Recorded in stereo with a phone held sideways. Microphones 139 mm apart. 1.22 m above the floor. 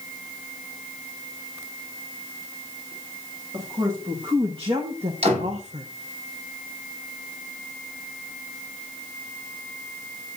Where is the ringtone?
No ringtone in this recording.